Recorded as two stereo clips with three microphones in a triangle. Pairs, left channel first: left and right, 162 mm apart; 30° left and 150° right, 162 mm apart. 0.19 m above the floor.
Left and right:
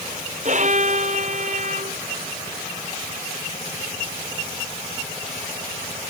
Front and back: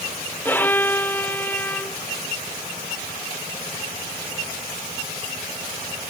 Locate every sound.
0.5 s a violin: 50° right